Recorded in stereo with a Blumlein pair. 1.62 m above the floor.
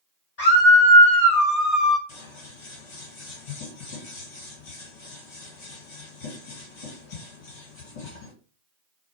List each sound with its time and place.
0.4 s a scream: 45° left, 1.2 m; by 2.0 s 10° right, 0.5 m
2.1 s scissors: 50° left, 1.4 m